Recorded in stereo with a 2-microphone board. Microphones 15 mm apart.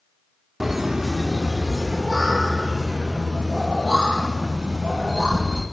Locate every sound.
0.6 s laughter: 10° right (ahead or behind), 1.2 m; by 5.6 s 60° right (ahead or behind), 4 m